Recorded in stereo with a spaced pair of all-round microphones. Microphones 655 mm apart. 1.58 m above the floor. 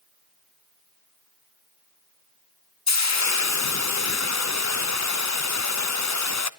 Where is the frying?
25° left (ahead or behind), 0.6 m.